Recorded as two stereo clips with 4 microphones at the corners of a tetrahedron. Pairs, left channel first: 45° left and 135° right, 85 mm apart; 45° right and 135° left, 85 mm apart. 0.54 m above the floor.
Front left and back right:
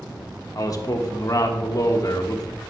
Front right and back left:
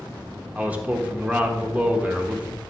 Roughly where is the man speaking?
Left.